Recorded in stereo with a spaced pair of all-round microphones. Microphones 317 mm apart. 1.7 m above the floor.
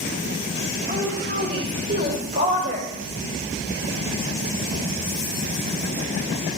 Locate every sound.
0.9 s a woman speaking: 30° right (ahead or behind), 6.5 m; by 2.9 s 35° right (ahead or behind), 4.5 m